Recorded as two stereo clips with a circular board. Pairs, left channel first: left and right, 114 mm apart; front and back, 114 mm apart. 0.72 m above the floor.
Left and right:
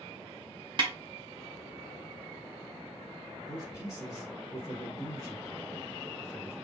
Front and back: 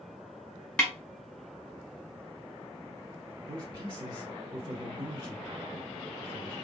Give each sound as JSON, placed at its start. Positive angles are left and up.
{"t": 0.8, "sound": "a snare drum", "azimuth_deg": -75, "distance_m": 1.2}
{"t": 3.5, "sound": "a man speaking", "azimuth_deg": 145, "distance_m": 1.7}